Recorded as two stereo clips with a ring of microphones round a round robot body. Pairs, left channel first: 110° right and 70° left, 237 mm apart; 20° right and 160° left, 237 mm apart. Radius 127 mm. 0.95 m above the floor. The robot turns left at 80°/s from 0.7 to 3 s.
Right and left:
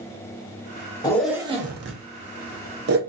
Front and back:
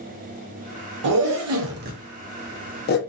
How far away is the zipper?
About 0.7 m.